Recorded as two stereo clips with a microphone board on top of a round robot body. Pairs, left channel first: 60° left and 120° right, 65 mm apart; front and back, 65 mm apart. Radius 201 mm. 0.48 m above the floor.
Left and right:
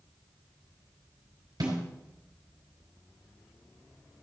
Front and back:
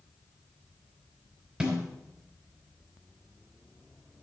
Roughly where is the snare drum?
Right.